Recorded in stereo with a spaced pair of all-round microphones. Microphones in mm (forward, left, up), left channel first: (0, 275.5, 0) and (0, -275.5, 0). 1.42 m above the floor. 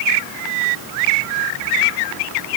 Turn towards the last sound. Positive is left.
No sound to turn to.